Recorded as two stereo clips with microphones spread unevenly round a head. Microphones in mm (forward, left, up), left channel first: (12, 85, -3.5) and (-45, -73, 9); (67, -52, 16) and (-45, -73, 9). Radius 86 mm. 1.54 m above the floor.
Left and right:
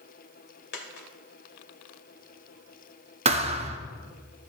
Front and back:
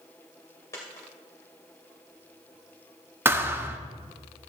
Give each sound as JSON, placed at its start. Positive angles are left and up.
{"t": 0.7, "sound": "a dropped coin", "azimuth_deg": 80, "distance_m": 2.5}
{"t": 3.2, "sound": "a thud", "azimuth_deg": -105, "distance_m": 1.1}